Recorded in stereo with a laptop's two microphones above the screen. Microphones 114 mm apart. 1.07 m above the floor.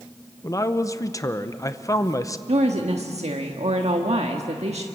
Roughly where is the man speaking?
Left.